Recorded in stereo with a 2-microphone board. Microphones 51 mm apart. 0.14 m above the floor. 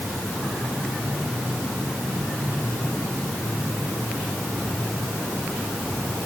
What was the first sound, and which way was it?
Only background noise.